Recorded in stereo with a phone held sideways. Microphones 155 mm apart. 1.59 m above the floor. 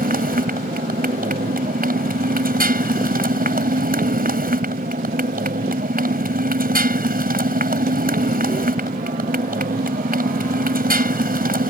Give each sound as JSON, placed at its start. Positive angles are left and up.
{"t": 0.0, "sound": "a motorcycle", "side_deg": -75}